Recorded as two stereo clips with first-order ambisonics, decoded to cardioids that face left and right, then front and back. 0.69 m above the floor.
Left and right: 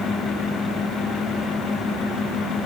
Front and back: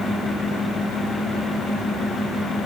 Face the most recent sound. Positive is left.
No sound to turn to.